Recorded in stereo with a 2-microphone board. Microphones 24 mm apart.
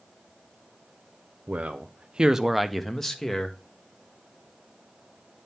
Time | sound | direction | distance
1.5 | a man speaking | 70° right (ahead or behind) | 0.7 m